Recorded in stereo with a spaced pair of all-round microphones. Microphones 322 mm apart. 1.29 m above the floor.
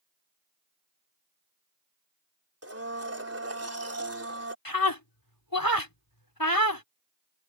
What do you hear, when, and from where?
2.6 s a blender: 45° right (ahead or behind)
4.7 s a scream: 85° left